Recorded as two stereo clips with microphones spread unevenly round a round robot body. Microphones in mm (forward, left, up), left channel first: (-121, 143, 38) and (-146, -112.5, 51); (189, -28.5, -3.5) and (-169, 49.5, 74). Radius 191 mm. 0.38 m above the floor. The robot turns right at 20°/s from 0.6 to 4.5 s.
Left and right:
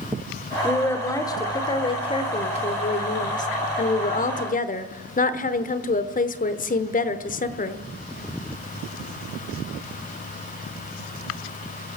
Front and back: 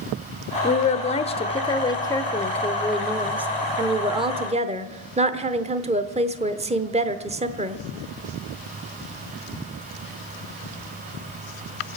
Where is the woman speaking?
10° left, 1.0 m; by 7.8 s 90° left, 1.0 m.